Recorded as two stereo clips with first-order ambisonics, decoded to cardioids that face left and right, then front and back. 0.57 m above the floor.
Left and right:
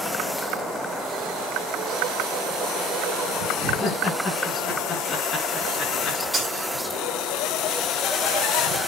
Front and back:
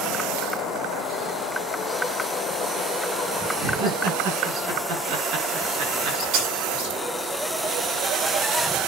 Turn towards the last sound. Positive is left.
turn(degrees=-175)